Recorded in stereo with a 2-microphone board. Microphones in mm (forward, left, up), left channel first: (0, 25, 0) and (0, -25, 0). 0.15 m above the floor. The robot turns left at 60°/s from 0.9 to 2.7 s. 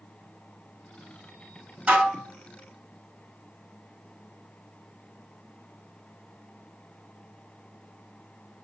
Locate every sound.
1.9 s dishes clattering: 25° right (ahead or behind), 1.0 m; by 2.3 s 15° right (ahead or behind), 1.0 m